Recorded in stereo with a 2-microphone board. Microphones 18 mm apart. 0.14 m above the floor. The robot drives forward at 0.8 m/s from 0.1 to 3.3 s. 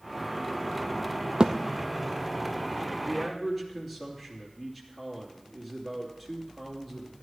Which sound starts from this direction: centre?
A man speaking, at 3.0 s.